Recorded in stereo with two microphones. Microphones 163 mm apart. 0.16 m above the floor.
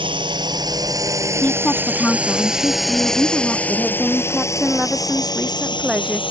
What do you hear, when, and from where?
0.0 s a drone: 35° right (ahead or behind); by 6.3 s 35° left (ahead or behind)
1.4 s a woman speaking: 10° left (ahead or behind)
3.7 s a woman speaking: 5° right (ahead or behind)